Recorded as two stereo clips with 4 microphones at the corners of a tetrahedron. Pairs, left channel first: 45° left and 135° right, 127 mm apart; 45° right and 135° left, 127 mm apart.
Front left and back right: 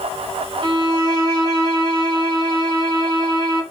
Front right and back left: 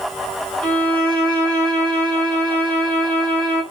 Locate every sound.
0.6 s a violin: 120° right, 1.1 m